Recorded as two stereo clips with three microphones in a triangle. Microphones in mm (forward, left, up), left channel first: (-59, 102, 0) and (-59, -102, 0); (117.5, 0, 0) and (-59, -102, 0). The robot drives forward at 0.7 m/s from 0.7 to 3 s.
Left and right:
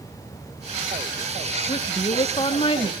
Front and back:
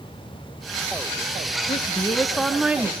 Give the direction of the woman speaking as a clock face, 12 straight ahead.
10 o'clock.